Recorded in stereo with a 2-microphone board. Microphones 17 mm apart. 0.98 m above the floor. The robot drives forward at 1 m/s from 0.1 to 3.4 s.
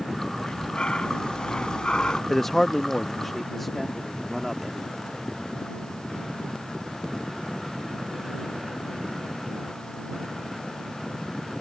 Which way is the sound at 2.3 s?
25° left (ahead or behind).